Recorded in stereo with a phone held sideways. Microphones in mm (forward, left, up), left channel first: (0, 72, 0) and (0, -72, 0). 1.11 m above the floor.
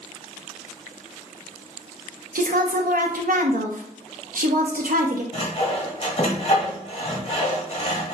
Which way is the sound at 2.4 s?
75° right (ahead or behind).